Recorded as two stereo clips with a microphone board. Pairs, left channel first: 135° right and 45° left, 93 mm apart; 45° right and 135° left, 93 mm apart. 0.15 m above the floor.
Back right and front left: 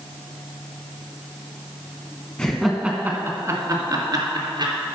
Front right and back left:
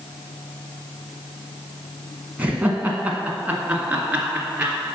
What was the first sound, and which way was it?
Laughter, 170° left.